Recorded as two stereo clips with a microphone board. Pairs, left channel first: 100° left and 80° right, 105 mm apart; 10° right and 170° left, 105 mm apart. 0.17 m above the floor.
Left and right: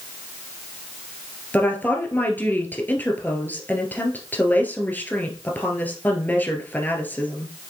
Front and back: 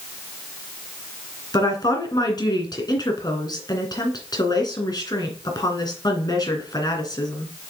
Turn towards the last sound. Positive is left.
turn(degrees=30)